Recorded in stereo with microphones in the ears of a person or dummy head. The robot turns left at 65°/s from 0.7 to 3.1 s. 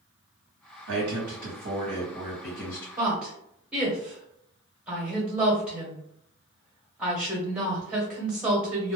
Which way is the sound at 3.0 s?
10° right (ahead or behind).